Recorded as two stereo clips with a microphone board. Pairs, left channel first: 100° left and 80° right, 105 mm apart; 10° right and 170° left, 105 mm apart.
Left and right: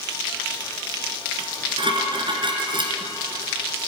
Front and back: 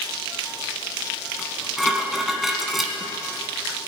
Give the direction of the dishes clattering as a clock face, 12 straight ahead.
3 o'clock.